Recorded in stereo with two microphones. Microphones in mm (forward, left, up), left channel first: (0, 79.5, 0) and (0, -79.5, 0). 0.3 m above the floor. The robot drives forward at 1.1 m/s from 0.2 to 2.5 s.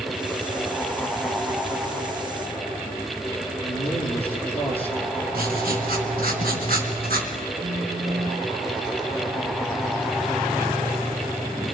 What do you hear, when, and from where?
3.6 s a man speaking: 10° left (ahead or behind), 5.5 m
5.3 s writing: 70° right (ahead or behind), 4 m
7.6 s a phone buzzing: 85° right, 3.5 m